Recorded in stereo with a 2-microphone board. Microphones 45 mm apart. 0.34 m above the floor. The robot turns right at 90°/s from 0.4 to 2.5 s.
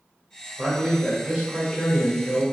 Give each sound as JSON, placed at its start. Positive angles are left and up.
{"t": 0.6, "sound": "a man speaking", "azimuth_deg": -105, "distance_m": 1.1}